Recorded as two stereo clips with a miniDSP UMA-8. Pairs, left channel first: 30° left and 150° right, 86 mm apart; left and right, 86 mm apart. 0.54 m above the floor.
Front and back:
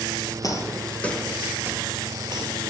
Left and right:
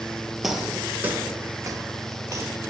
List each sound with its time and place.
0.4 s footsteps: 5° right, 0.8 m; by 2.6 s 135° right, 1.0 m